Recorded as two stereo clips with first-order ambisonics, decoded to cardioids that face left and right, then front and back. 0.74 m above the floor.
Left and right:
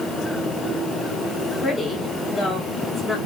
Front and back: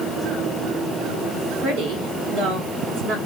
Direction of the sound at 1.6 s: 170° left.